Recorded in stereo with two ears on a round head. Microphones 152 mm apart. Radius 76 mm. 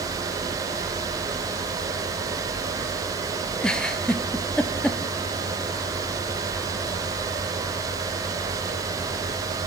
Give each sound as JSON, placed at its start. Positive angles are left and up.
{"t": 3.6, "sound": "a giggle", "side_deg": 5, "distance_m": 0.6}